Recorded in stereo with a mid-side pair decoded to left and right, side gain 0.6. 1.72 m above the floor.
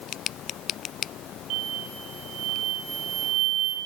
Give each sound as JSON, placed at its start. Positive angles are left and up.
{"t": 1.5, "sound": "an explosion", "azimuth_deg": -65, "distance_m": 5.0}